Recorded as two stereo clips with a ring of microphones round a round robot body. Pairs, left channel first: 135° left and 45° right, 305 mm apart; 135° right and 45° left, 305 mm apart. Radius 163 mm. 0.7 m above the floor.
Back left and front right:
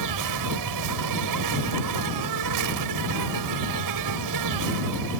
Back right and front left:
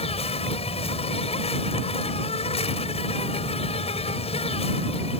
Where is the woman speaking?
I don't hear a woman speaking.